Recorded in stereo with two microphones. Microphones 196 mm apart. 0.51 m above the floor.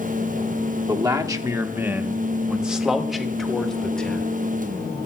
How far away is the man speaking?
About 1.2 m.